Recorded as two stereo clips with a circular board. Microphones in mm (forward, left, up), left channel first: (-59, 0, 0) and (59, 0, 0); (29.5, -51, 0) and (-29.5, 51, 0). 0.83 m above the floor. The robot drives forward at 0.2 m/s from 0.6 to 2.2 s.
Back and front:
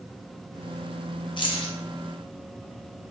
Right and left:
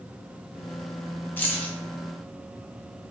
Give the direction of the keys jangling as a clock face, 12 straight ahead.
4 o'clock.